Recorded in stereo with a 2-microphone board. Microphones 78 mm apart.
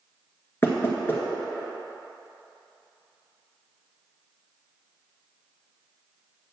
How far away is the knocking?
About 1.8 m.